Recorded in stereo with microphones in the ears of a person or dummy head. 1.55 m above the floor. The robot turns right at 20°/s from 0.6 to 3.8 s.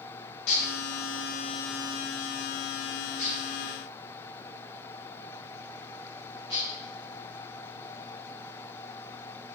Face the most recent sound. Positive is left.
turn(degrees=25)  # may be behind; listen again after turning